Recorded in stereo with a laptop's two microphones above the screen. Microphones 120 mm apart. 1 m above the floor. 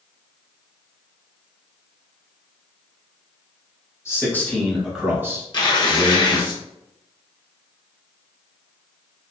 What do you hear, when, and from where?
4.0 s a man speaking: 25° left (ahead or behind), 1.2 m; by 6.5 s 60° right (ahead or behind), 1.2 m
5.5 s tearing paper: 40° left (ahead or behind), 1.0 m